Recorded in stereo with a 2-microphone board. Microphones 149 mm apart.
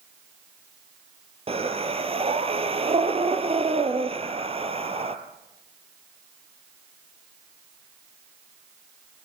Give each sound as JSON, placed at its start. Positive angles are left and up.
{"t": 1.5, "sound": "breathing", "side_deg": -40, "distance_m": 2.0}